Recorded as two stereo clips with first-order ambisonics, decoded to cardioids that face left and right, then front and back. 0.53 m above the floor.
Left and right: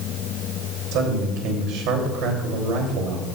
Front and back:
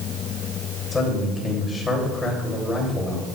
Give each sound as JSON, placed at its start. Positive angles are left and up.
{"t": 0.9, "sound": "a man speaking", "azimuth_deg": -75, "distance_m": 3.0}